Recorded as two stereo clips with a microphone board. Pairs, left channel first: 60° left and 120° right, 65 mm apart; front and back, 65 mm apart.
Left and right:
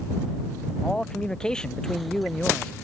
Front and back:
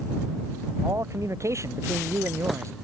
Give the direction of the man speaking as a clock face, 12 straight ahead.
7 o'clock.